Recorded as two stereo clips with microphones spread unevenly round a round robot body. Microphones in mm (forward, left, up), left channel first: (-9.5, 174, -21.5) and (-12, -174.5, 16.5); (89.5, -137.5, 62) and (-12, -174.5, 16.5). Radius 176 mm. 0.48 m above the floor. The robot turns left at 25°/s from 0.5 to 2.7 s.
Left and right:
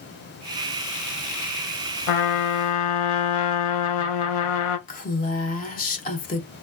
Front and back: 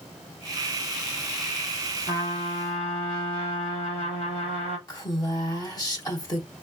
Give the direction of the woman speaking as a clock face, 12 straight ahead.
9 o'clock.